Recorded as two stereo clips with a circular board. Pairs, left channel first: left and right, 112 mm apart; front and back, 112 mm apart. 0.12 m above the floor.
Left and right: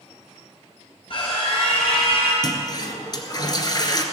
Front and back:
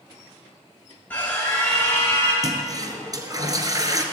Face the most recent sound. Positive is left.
turn(degrees=130)